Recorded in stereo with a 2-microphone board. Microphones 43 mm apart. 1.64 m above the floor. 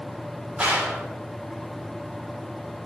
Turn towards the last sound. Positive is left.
turn(degrees=-25)  # may be behind; listen again after turning